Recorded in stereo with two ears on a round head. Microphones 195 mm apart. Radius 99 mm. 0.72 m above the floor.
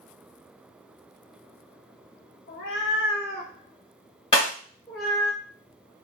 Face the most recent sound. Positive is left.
turn(degrees=25)  # may be behind; listen again after turning